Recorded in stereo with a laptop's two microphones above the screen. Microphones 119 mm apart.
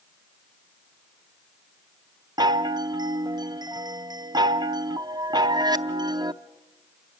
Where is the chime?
35° right (ahead or behind), 0.6 m.